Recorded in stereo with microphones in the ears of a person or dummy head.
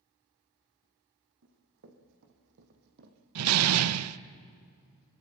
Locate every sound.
1.4 s running footsteps: 70° right (ahead or behind), 4 m; by 3.2 s 50° right (ahead or behind), 2.5 m
3.4 s a door slam: 85° right, 0.7 m